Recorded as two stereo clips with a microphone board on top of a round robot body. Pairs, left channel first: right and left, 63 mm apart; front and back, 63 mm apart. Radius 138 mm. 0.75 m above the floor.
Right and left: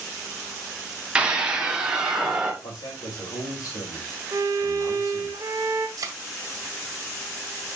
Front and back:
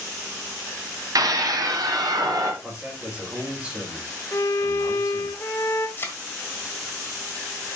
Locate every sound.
1.1 s a scream: 160° left, 2.5 m; by 2.5 s 170° left, 3 m
2.6 s a man speaking: 100° right, 3 m
4.3 s a violin: 50° left, 0.5 m
6.0 s a thud: 55° left, 1.4 m